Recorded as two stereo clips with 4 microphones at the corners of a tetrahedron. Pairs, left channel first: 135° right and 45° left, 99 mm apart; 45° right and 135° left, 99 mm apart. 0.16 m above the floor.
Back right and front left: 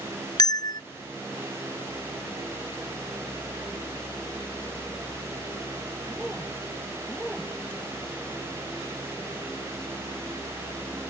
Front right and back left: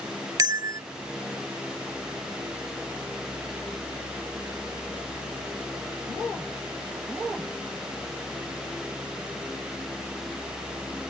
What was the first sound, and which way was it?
A bell, 175° right.